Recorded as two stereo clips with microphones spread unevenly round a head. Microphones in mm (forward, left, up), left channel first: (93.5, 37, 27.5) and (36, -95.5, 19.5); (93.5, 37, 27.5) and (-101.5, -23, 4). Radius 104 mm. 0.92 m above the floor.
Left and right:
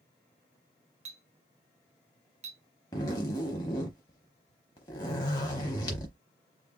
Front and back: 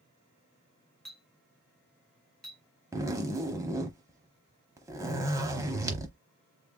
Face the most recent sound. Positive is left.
turn(degrees=120)